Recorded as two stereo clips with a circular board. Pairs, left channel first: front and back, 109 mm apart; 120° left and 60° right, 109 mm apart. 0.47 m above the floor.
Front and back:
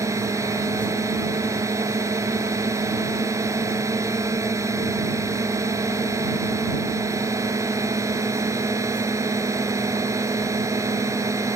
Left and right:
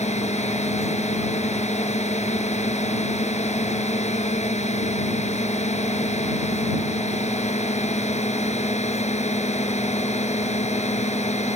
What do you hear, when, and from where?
0.0 s a drone: 120° left